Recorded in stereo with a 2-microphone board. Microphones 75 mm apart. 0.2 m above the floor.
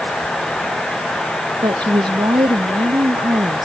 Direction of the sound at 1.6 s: 75° right (ahead or behind).